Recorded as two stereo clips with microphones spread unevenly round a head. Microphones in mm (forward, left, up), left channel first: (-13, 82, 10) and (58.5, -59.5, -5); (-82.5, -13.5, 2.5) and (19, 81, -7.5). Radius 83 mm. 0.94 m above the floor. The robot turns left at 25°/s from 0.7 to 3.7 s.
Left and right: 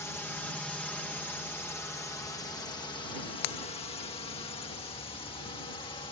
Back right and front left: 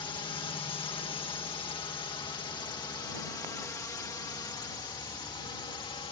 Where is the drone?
170° right; by 6.1 s 175° left.